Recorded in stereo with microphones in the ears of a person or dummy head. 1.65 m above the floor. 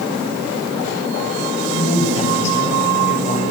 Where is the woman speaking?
40° left (ahead or behind), 8 m; by 3.4 s 45° left (ahead or behind), 9 m.